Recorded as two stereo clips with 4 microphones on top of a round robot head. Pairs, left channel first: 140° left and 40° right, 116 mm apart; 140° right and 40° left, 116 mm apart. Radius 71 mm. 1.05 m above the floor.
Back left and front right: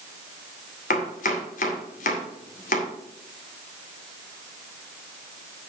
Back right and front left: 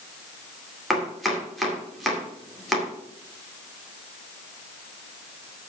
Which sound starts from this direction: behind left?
Chopping, at 0.9 s.